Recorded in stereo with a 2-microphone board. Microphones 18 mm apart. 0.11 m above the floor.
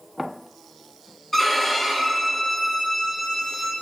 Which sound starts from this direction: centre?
A violin, at 1.3 s.